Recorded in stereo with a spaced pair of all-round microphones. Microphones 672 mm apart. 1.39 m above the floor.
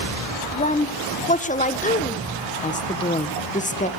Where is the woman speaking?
10° left (ahead or behind), 1.3 m.